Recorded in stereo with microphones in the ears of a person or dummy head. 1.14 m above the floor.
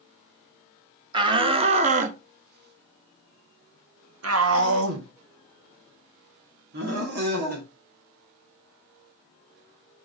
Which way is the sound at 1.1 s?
25° right (ahead or behind).